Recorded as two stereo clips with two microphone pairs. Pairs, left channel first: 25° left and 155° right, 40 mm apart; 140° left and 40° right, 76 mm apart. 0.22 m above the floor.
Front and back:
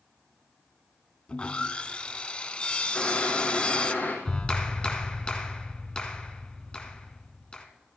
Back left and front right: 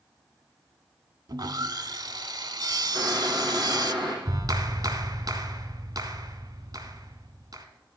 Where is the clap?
40° right, 1.7 m.